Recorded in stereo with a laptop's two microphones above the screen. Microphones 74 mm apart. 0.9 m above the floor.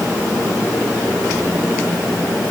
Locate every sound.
Only background noise.